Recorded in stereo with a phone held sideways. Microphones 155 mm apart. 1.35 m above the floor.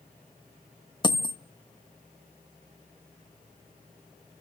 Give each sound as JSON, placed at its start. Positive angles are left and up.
{"t": 1.0, "sound": "a dropped coin", "side_deg": 30, "distance_m": 0.7}